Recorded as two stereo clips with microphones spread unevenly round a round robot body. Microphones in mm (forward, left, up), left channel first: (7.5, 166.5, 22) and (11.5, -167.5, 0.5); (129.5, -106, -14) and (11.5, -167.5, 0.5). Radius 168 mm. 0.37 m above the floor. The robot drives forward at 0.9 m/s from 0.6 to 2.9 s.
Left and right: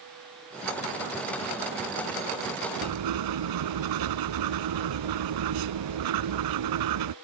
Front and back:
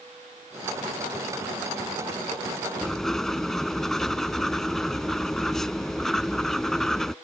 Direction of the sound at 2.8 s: 55° right.